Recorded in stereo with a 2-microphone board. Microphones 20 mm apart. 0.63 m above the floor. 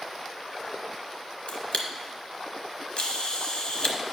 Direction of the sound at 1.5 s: 50° left (ahead or behind).